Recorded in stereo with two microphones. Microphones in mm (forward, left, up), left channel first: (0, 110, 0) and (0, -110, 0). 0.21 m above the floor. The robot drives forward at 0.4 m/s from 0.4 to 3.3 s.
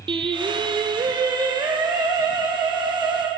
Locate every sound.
0.1 s singing: 20° right (ahead or behind), 1.2 m; by 3.3 s 10° right (ahead or behind), 2.5 m